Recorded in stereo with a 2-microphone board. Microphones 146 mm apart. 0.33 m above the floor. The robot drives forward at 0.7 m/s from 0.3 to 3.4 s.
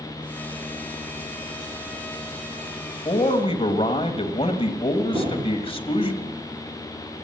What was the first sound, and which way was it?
A man speaking, 40° left (ahead or behind).